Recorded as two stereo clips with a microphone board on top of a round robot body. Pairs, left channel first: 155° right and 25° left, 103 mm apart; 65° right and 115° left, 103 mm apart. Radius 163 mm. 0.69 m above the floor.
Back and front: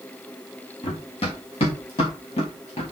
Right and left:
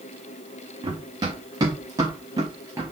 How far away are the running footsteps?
About 4.5 m.